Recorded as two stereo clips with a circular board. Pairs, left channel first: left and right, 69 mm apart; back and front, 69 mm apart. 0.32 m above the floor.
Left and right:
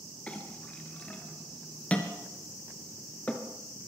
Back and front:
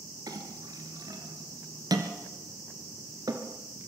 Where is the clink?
20° left, 2.5 m.